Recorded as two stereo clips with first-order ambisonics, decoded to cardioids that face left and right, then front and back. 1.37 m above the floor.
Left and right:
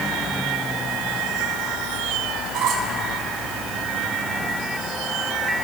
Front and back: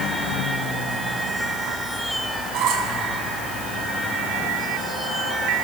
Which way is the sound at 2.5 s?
135° right.